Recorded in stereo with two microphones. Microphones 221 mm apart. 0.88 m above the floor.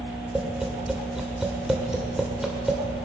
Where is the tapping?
5° right (ahead or behind), 2.5 m.